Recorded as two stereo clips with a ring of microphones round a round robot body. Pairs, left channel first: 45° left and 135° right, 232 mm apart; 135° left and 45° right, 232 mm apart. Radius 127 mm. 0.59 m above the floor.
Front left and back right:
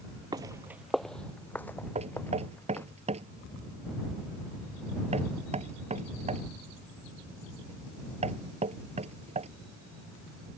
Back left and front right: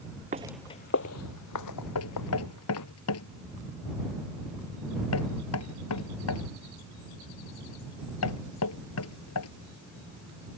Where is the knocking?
160° left.